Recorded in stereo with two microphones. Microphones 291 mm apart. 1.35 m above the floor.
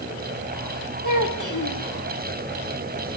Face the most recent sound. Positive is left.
turn(degrees=80)